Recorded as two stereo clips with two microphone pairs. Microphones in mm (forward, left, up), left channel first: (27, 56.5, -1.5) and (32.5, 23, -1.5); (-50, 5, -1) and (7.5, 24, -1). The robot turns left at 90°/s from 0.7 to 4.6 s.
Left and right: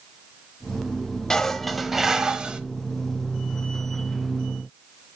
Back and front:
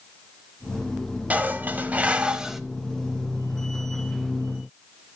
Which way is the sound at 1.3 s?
50° left.